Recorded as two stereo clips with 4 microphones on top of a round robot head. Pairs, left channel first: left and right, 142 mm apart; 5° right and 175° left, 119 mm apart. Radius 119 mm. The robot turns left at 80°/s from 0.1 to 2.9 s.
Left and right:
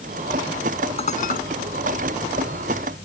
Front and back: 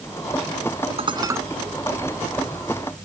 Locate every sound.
1.0 s dishes clattering: 140° left; by 1.4 s 105° left